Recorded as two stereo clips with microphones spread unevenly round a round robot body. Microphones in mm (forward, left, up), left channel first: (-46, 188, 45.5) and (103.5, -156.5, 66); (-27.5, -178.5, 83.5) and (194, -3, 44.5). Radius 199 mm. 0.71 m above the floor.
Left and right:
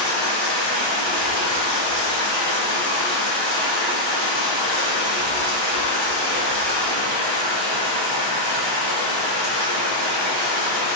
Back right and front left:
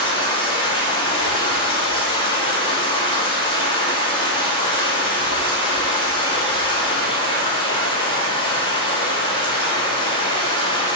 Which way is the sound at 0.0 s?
65° right.